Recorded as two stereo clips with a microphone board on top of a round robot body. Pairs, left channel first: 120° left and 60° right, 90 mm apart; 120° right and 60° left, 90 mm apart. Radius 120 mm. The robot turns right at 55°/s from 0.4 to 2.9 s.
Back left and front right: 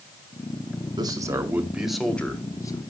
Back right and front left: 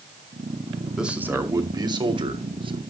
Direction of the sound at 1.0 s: 25° right.